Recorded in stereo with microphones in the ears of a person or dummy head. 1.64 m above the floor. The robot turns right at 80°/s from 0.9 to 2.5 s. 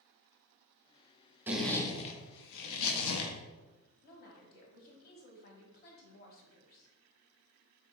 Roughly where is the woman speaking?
Left.